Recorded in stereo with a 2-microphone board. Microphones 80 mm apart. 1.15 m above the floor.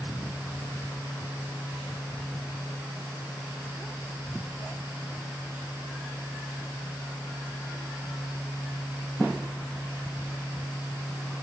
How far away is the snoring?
I don't hear snoring.